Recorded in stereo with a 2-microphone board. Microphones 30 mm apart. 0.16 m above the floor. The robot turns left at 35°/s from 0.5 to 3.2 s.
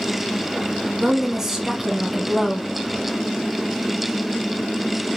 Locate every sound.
1.0 s a woman speaking: 20° right (ahead or behind), 1.3 m; by 2.7 s 10° left (ahead or behind), 1.3 m